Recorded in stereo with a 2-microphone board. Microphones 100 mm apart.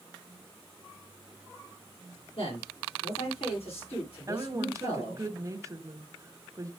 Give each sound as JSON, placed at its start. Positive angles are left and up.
{"t": 2.4, "sound": "a man speaking", "side_deg": 75, "distance_m": 8.5}
{"t": 4.3, "sound": "a woman speaking", "side_deg": -30, "distance_m": 1.4}